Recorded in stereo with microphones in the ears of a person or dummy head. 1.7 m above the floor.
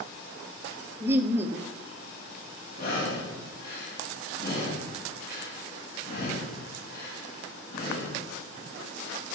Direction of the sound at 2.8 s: 50° left (ahead or behind).